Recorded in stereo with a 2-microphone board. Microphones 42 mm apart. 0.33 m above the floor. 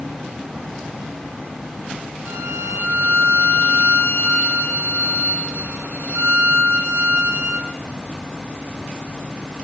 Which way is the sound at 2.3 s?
90° right.